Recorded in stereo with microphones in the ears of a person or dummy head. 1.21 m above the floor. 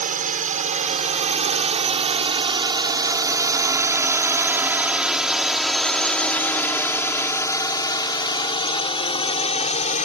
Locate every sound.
0.0 s a drone: 40° right (ahead or behind); by 10.1 s 35° left (ahead or behind)